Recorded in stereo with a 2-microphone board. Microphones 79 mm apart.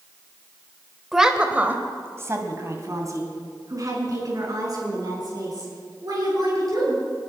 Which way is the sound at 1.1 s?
5° right (ahead or behind).